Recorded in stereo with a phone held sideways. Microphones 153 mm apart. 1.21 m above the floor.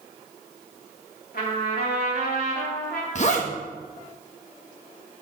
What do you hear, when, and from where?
1.3 s a trumpet: 85° left, 2.5 m
3.1 s a zipper: 50° left (ahead or behind), 1.2 m